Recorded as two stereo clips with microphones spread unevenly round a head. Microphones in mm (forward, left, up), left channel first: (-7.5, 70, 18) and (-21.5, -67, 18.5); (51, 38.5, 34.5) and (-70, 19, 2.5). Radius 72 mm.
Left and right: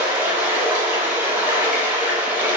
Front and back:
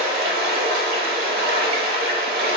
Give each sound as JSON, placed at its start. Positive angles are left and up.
{"t": 0.0, "sound": "running water", "azimuth_deg": -170, "distance_m": 0.7}